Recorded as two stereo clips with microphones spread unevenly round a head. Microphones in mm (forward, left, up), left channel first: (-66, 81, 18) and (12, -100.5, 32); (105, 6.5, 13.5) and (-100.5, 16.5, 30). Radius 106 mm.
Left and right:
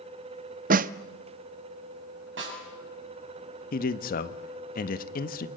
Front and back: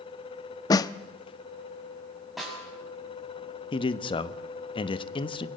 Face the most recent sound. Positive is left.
turn(degrees=65)